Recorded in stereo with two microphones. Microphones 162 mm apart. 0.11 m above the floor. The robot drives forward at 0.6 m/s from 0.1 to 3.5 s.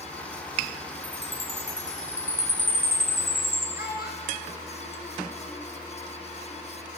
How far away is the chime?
About 3 m.